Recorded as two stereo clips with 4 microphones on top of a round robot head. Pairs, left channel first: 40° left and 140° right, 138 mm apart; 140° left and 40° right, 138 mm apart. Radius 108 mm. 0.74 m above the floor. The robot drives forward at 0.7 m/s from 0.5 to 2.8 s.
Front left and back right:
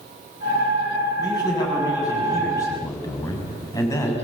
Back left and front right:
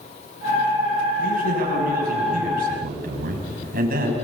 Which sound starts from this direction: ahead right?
A man speaking, at 1.2 s.